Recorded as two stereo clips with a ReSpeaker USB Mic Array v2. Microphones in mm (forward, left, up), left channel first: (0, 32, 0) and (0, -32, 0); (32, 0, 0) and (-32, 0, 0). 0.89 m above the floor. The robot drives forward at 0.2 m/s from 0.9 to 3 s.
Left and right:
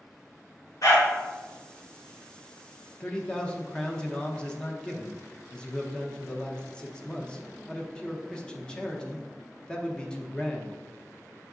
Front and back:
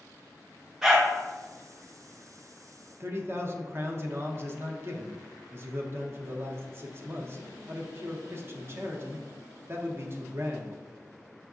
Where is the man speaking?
160° left, 0.6 m.